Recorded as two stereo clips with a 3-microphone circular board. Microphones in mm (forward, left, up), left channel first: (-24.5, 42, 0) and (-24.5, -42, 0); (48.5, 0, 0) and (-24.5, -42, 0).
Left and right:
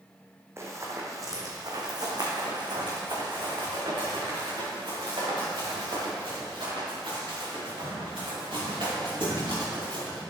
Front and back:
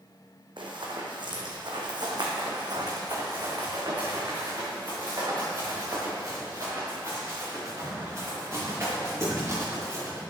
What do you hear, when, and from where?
0.6 s running footsteps: 145° right, 1.8 m; by 10.2 s 90° right, 6 m